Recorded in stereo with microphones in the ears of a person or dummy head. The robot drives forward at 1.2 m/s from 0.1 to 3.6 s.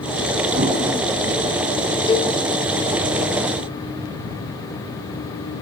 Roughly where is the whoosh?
Right.